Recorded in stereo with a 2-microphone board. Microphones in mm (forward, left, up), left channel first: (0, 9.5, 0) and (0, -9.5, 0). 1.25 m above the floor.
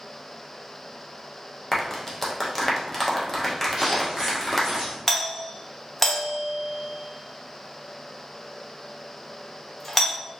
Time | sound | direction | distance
1.7 | a clap | 10° left (ahead or behind) | 0.9 m
3.8 | footsteps | 20° right (ahead or behind) | 1.7 m
5.1 | a doorbell | 10° left (ahead or behind) | 0.7 m